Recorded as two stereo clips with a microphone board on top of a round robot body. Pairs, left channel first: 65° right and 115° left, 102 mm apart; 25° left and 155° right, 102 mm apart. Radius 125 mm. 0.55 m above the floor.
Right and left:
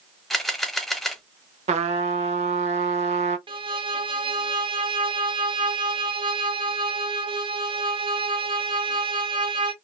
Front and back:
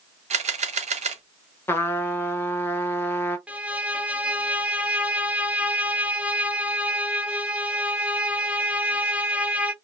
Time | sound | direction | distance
0.3 | a camera shutter | 155° right | 0.8 m
1.7 | a trumpet | 90° left | 0.5 m
3.5 | a violin | 125° left | 0.8 m